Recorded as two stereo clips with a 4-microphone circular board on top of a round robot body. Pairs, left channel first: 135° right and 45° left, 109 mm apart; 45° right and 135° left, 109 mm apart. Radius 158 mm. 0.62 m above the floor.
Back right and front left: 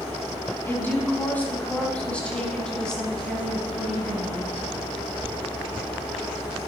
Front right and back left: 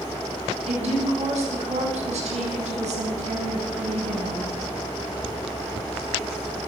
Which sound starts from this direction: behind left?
A woman speaking, at 0.7 s.